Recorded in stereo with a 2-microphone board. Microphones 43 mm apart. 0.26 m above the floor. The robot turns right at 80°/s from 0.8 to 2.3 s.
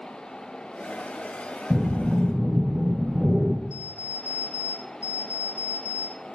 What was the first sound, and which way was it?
Breathing, 135° right.